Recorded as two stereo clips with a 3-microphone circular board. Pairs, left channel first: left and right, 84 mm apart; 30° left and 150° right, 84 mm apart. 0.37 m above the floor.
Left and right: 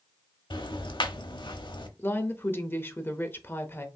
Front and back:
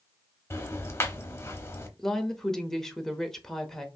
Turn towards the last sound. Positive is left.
turn(degrees=110)